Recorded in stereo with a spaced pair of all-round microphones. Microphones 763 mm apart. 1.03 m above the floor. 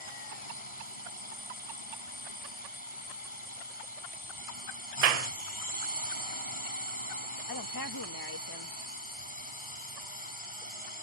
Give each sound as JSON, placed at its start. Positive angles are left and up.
{"t": 0.0, "sound": "a drone", "side_deg": 40}
{"t": 5.0, "sound": "a clap", "side_deg": -60}
{"t": 7.5, "sound": "a woman speaking", "side_deg": 30}